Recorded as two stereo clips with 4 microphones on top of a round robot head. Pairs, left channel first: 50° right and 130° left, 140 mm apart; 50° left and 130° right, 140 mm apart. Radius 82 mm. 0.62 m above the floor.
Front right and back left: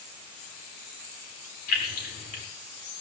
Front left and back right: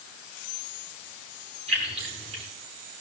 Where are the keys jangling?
80° right, 6 m.